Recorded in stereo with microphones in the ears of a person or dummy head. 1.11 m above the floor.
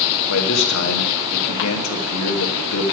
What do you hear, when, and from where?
0.3 s a man speaking: 70° left (ahead or behind), 1.1 m